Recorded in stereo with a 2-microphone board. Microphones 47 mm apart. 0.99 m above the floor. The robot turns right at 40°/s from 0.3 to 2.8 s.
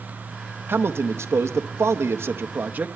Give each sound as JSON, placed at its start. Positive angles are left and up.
{"t": 0.7, "sound": "a man speaking", "azimuth_deg": -125, "distance_m": 0.8}